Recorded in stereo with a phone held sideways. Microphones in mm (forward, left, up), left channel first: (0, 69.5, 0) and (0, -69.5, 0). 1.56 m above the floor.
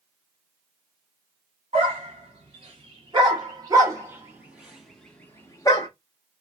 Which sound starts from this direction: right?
A dog barking, at 1.7 s.